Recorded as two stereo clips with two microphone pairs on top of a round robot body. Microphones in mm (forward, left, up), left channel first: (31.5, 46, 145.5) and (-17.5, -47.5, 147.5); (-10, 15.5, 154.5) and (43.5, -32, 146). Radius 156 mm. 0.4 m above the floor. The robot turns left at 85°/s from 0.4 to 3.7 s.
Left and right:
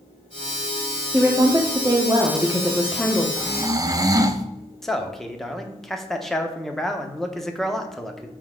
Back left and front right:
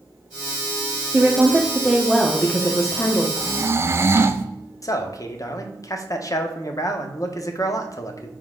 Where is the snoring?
40° right, 0.7 m; by 4.5 s 70° right, 0.7 m.